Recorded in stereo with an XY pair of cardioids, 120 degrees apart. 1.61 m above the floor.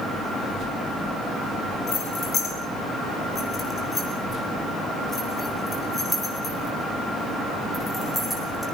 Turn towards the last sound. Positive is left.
turn(degrees=5)